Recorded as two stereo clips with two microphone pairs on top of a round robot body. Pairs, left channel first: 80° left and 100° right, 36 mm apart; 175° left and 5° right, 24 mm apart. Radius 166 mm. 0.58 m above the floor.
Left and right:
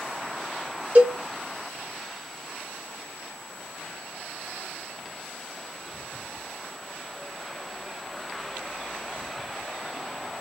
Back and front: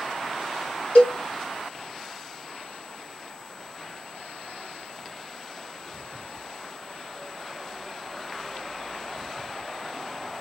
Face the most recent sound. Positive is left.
turn(degrees=-145)